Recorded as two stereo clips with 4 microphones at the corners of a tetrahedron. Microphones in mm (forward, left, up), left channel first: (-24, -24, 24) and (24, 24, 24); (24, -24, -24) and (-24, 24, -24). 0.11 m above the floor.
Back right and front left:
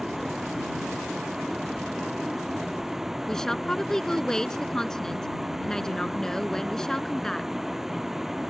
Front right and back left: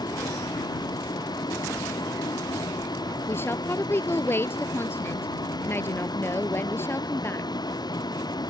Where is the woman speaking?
60° right.